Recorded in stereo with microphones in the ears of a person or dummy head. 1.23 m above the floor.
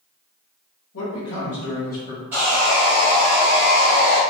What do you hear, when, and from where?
0.9 s a man speaking: 80° left, 1.2 m; by 2.2 s 25° left (ahead or behind), 1.0 m
2.3 s sawing: 10° right (ahead or behind), 1.1 m